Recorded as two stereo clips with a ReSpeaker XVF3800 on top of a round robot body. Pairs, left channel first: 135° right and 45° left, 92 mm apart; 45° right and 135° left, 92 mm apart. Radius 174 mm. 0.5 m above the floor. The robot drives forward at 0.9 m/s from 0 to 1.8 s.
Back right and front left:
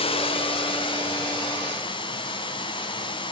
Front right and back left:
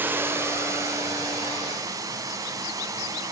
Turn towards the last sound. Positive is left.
turn(degrees=-170)